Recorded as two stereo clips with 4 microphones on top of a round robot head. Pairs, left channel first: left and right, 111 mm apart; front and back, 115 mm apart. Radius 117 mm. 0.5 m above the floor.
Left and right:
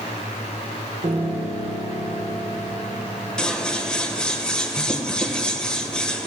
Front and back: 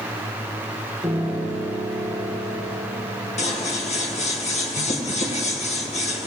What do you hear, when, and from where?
1.0 s a piano: 95° right, 5 m
3.4 s scissors: 10° left, 1.9 m